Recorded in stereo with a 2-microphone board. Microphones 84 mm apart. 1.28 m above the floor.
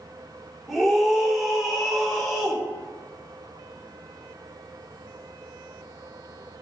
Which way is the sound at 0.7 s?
Centre (ahead or behind).